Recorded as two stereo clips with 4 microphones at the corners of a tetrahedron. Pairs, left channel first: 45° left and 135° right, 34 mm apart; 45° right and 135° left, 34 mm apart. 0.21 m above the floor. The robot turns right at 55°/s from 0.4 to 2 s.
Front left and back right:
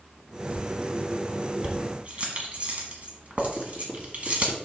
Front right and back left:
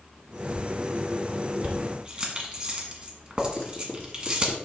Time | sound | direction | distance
1.6 | keys jangling | 165° left | 1.4 m
3.6 | writing | 80° right | 2.5 m